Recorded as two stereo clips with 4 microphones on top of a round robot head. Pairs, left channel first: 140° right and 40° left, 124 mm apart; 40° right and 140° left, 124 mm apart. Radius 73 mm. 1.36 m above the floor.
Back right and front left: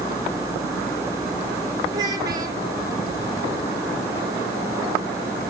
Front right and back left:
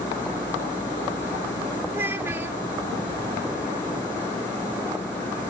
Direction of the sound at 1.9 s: 75° left.